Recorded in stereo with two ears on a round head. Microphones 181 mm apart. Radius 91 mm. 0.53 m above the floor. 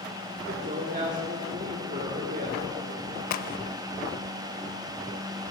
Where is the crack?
45° left (ahead or behind), 0.5 m.